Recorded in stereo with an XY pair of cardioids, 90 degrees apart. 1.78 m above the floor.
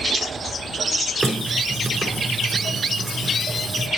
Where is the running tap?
30° right, 4.5 m.